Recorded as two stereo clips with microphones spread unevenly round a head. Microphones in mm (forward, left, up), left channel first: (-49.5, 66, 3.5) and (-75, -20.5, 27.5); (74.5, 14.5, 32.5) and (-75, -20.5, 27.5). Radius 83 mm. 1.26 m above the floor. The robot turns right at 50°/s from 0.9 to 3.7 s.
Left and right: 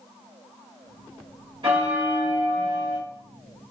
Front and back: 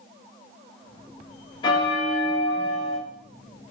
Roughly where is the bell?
Ahead right.